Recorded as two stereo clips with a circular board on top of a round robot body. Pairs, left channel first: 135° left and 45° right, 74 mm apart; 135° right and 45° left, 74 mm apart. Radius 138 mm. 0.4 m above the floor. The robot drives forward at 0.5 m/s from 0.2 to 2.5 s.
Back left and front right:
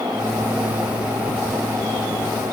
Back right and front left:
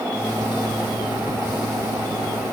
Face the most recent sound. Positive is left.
No sound to turn to.